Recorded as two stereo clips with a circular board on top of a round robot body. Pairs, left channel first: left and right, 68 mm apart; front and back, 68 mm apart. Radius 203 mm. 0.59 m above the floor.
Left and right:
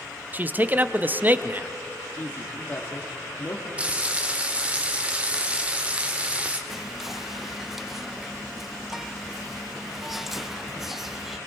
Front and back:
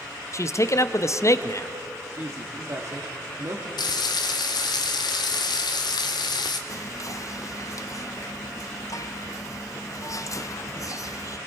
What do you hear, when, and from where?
0.3 s a man speaking: 30° right, 1.0 m
2.2 s a man speaking: 140° left, 2 m
3.8 s frying: 15° right, 0.5 m
6.7 s whispering: 5° right, 1.5 m